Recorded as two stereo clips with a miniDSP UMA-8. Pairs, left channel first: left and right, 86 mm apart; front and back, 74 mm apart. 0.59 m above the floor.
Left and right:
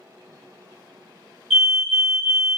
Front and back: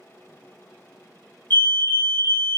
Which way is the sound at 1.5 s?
5° left.